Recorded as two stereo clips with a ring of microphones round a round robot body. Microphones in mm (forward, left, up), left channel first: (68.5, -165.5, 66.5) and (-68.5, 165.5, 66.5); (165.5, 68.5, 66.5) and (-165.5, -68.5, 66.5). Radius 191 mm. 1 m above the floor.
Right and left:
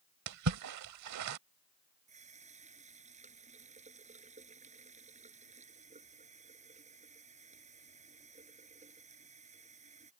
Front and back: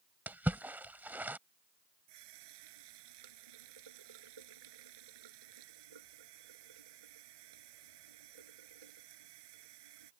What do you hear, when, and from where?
0.3 s a splash: 120° left
2.1 s a running tap: 175° right